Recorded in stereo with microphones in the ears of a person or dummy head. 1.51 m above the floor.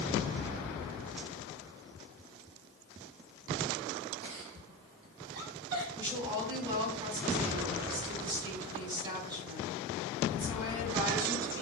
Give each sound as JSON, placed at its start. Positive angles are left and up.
{"t": 4.2, "sound": "a giggle", "side_deg": -75, "distance_m": 4.5}
{"t": 6.0, "sound": "a woman speaking", "side_deg": -20, "distance_m": 4.5}